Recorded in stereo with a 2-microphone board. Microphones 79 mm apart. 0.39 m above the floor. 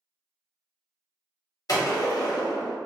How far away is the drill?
No drill in this recording.